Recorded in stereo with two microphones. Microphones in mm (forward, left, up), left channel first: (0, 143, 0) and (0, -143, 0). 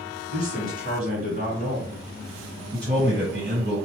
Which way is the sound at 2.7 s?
35° right (ahead or behind).